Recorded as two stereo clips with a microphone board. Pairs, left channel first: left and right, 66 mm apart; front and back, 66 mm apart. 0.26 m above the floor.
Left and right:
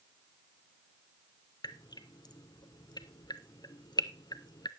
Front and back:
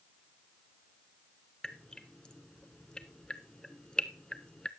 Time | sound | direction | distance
1.6 | dripping | 80° left | 0.6 m